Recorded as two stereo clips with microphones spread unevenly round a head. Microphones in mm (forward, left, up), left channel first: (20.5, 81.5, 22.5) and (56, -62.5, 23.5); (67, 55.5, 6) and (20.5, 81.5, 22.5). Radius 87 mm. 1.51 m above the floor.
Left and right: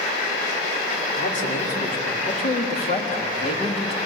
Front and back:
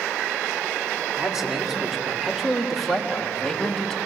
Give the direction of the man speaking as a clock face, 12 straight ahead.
10 o'clock.